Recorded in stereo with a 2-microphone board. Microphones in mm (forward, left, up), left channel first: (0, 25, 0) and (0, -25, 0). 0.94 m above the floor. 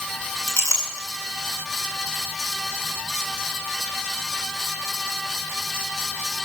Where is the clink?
80° left, 6 m.